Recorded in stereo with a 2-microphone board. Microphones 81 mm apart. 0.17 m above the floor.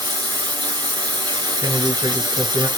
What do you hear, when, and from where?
0.0 s running water: 60° right (ahead or behind), 2.0 m
1.6 s a man speaking: 60° right (ahead or behind), 2.5 m